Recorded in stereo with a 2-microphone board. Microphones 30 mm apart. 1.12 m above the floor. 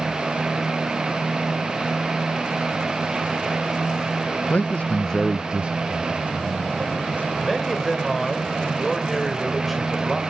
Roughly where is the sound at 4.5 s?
Left.